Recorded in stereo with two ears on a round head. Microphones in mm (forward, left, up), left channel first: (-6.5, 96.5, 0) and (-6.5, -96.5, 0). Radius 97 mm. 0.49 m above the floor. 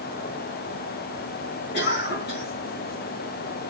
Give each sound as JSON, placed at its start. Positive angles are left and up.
{"t": 1.7, "sound": "a cough", "side_deg": 50, "distance_m": 4.5}